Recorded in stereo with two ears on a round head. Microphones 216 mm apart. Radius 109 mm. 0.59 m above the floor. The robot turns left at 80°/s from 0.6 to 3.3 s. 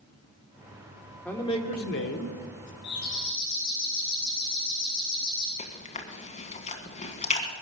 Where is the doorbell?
55° left, 6.5 m; by 5.5 s 20° left, 6.5 m.